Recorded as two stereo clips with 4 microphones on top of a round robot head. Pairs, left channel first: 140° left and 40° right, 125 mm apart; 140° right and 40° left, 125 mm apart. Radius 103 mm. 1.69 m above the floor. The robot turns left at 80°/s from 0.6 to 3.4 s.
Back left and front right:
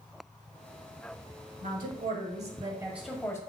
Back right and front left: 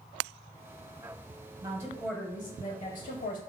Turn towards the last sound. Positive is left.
turn(degrees=-155)